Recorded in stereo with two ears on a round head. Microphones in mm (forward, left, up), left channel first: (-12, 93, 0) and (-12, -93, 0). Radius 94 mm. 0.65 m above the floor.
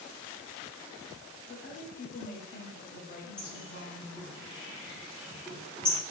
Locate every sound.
1.5 s a woman speaking: 45° left (ahead or behind), 1.2 m
3.4 s a bird: 5° left (ahead or behind), 1.4 m